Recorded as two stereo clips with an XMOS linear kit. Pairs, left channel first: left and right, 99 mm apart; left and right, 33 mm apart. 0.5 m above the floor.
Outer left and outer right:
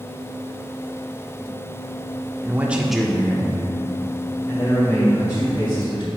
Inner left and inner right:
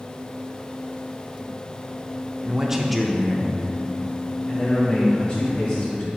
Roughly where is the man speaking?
Right.